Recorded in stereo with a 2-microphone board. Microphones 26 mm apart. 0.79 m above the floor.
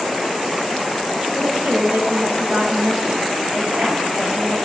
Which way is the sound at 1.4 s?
75° right (ahead or behind).